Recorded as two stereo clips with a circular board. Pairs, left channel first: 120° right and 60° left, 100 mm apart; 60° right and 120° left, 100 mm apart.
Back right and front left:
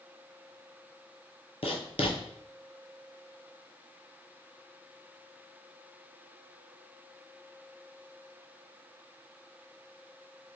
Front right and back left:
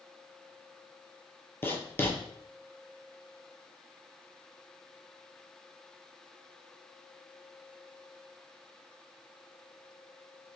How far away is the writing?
About 0.7 m.